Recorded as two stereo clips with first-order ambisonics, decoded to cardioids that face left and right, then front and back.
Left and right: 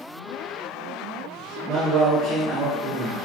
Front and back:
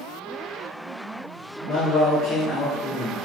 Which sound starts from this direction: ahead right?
A man speaking, at 1.7 s.